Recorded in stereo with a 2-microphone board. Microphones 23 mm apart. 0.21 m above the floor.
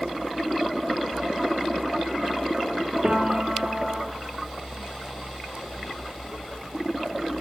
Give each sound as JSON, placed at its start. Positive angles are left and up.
{"t": 3.0, "sound": "a piano", "side_deg": -50, "distance_m": 3.0}